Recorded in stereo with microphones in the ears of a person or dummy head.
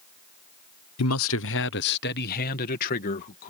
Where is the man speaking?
90° left; by 3.5 s 45° left (ahead or behind).